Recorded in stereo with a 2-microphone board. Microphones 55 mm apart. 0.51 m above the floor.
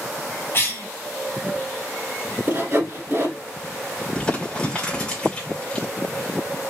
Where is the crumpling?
15° left (ahead or behind), 1.7 m.